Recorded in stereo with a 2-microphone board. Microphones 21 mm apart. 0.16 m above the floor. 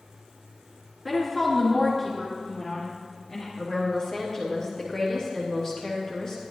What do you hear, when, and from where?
1.1 s a woman speaking: centre (ahead or behind), 2.5 m; by 3.5 s 30° left (ahead or behind), 3 m
3.6 s a woman speaking: 35° left (ahead or behind), 3.5 m